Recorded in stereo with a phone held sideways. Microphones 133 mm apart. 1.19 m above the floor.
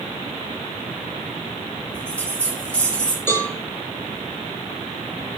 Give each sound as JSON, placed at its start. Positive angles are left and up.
{"t": 1.9, "sound": "a bell", "side_deg": 10, "distance_m": 2.5}
{"t": 3.3, "sound": "a cowbell", "side_deg": 15, "distance_m": 3.0}